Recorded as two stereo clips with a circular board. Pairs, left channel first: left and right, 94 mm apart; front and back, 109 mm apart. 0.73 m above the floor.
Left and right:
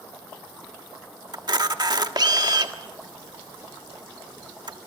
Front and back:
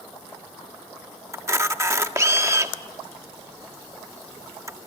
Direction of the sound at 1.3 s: 120° right.